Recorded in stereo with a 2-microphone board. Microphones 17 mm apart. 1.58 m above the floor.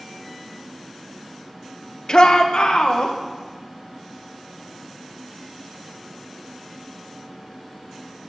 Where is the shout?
50° left (ahead or behind), 1.2 m; by 3.1 s 85° left, 2 m.